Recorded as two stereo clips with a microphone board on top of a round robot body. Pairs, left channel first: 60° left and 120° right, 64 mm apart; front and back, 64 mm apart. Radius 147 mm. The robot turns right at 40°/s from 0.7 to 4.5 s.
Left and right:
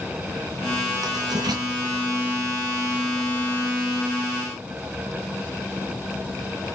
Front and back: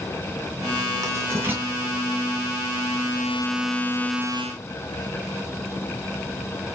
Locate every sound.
1.0 s writing: 140° right, 3.5 m; by 1.6 s 115° right, 3.5 m